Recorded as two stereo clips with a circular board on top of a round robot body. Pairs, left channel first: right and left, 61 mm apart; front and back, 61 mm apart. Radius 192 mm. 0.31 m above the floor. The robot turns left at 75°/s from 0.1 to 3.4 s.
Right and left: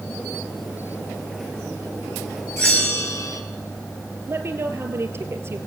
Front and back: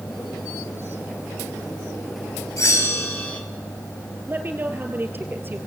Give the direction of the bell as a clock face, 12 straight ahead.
12 o'clock.